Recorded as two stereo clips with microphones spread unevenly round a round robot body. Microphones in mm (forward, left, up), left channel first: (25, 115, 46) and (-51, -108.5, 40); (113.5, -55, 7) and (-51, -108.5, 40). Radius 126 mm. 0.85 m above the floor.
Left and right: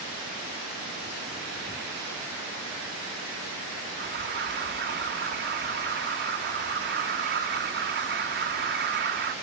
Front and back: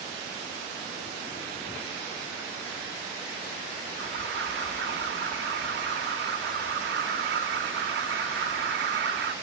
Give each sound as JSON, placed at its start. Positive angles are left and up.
{"t": 4.0, "sound": "an alarm", "azimuth_deg": -150, "distance_m": 1.8}